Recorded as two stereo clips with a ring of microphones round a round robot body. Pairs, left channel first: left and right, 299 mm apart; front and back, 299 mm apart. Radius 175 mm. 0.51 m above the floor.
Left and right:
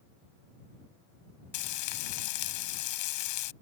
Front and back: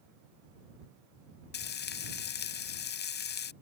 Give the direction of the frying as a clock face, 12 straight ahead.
10 o'clock.